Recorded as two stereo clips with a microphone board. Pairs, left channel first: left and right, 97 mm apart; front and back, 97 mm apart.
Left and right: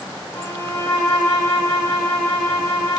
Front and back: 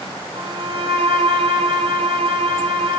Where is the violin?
150° left, 2.5 m.